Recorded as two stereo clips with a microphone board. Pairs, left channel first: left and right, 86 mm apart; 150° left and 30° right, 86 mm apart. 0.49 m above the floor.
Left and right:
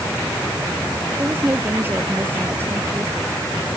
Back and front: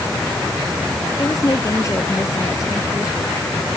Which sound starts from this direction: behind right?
A woman speaking, at 1.2 s.